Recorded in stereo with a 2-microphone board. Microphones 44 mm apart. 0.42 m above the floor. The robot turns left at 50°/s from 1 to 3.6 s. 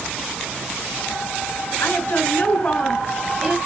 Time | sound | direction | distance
1.8 | a woman speaking | 60° left | 6 m